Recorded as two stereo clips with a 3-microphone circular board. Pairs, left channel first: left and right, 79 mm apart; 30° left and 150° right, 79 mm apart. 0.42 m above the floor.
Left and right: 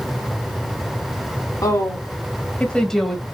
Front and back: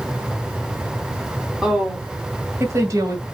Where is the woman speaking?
130° left, 3 m; by 3.2 s 170° right, 2 m.